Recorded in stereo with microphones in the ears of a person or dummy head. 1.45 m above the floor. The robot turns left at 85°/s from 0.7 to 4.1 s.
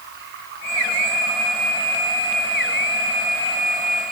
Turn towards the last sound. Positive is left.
turn(degrees=-50)